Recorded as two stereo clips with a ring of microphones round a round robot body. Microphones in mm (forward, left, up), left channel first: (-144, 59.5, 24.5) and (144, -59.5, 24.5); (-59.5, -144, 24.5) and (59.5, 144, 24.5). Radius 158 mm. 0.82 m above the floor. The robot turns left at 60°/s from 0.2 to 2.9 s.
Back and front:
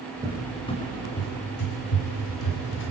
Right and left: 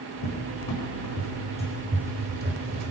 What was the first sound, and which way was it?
A cupboard door, 100° right.